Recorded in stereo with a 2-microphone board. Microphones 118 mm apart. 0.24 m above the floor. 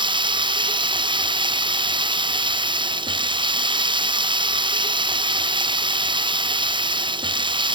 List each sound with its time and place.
0.0 s running water: 45° right (ahead or behind)